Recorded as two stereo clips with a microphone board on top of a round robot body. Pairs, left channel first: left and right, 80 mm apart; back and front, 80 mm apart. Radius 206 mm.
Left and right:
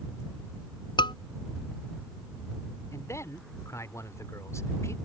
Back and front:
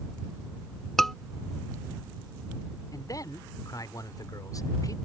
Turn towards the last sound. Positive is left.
turn(degrees=140)